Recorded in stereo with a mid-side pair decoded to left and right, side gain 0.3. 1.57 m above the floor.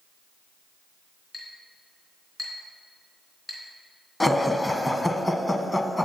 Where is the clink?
40° left, 3.5 m.